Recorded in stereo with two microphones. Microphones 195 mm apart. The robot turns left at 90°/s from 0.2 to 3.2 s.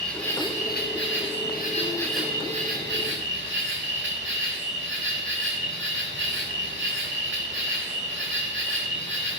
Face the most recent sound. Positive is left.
turn(degrees=-95)